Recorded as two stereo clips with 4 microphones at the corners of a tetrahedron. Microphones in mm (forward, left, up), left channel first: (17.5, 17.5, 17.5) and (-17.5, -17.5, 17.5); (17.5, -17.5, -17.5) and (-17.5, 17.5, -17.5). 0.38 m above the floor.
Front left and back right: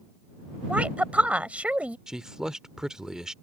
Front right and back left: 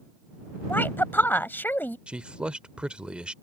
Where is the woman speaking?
80° right.